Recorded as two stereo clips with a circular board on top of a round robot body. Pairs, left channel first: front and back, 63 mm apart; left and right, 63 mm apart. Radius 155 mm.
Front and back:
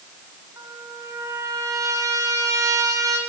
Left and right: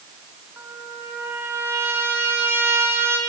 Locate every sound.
0.6 s a trumpet: 145° right, 4 m